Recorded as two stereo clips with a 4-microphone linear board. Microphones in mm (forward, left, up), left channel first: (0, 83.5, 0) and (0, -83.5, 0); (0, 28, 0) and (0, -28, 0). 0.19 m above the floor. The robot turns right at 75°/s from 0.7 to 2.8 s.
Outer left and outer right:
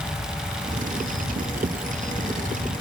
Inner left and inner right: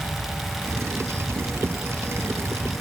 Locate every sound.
Only background noise.